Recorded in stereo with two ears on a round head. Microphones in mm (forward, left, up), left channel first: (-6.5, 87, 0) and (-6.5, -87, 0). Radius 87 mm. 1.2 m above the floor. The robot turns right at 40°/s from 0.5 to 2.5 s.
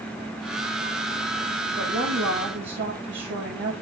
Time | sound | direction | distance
1.8 | a woman speaking | 40° right (ahead or behind) | 2.0 m